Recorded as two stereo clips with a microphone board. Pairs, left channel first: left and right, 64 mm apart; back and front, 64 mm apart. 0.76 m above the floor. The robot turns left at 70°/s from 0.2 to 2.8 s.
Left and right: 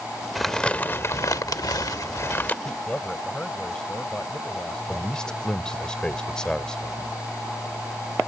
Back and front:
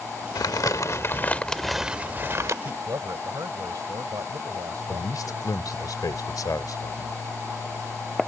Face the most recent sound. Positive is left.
turn(degrees=170)